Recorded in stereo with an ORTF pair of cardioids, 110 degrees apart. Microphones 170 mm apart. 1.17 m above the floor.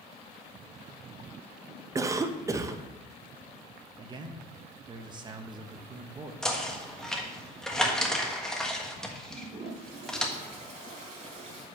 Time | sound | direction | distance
1.9 | a cough | 20° right | 0.7 m
4.0 | a man speaking | 25° right | 1.2 m
6.4 | knocking | 5° left | 1.3 m
9.3 | a toilet flushing | 45° right | 4 m